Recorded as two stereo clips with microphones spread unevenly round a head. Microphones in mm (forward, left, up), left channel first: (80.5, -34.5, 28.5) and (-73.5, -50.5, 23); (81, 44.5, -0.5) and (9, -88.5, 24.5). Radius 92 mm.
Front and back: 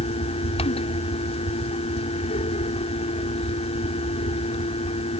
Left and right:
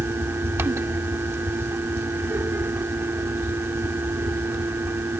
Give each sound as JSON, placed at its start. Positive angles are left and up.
{"t": 0.0, "sound": "a fan", "azimuth_deg": -45}